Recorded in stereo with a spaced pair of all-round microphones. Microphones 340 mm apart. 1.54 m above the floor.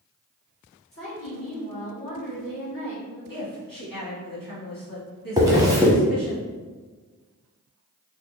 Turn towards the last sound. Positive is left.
turn(degrees=-10)  # may be behind; listen again after turning